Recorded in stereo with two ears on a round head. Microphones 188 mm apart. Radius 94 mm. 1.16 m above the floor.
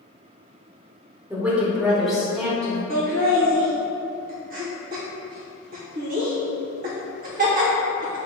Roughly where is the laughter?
Right.